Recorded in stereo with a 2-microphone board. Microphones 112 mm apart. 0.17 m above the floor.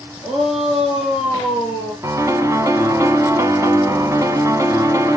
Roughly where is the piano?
Right.